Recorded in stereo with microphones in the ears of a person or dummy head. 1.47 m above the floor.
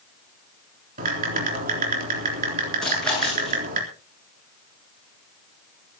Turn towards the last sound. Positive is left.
turn(degrees=5)  # may be behind; listen again after turning